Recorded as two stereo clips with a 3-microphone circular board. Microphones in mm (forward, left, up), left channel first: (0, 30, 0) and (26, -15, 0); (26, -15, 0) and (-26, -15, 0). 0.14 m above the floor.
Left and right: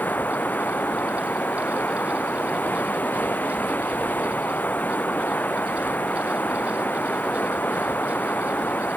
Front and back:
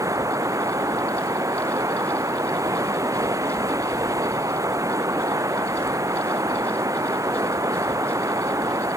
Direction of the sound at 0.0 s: 175° left.